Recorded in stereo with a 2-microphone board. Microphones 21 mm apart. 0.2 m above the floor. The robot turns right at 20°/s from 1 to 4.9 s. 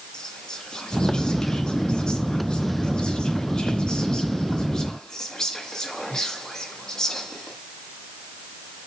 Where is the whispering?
55° left, 1.9 m; by 7.6 s 135° left, 1.9 m.